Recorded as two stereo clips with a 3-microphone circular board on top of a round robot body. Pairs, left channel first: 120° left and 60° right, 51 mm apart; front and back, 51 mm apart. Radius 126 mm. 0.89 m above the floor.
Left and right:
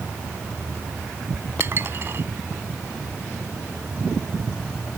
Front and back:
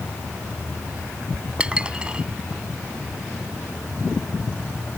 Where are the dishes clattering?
110° right.